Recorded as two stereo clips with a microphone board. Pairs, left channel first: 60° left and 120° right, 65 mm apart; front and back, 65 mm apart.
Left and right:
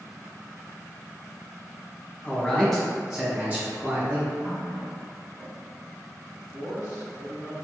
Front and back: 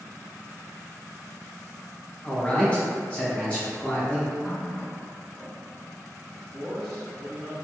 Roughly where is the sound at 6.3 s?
Left.